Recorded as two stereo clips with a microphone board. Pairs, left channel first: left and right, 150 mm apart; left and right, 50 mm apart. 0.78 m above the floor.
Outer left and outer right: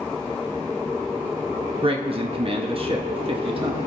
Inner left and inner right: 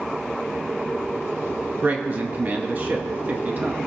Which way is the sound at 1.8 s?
40° right (ahead or behind).